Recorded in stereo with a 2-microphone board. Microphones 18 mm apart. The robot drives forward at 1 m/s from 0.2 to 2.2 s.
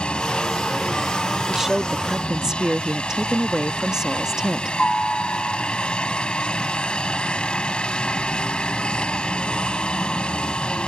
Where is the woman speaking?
20° right (ahead or behind); by 4.8 s 35° right (ahead or behind).